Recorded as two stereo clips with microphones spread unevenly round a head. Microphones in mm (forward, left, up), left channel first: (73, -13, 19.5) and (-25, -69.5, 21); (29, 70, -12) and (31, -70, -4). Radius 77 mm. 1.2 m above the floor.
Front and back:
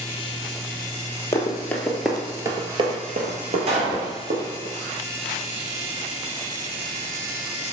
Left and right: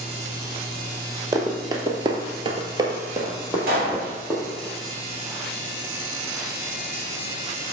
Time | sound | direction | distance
1.3 | running footsteps | 35° right | 1.9 m
3.7 | a pop | 125° right | 3 m